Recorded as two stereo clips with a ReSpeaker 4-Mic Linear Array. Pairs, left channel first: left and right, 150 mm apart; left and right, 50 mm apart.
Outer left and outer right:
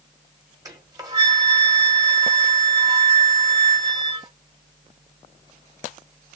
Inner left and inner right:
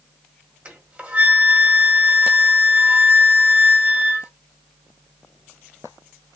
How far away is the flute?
About 1.7 m.